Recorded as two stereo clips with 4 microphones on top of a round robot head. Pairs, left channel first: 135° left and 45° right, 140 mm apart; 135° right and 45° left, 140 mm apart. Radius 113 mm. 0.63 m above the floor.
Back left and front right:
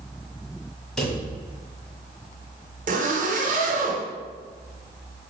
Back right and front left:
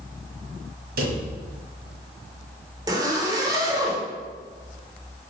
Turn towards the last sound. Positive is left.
turn(degrees=-20)